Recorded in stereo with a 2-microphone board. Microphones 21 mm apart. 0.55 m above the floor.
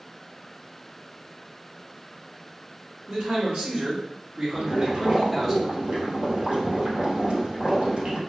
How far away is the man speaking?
About 1.5 m.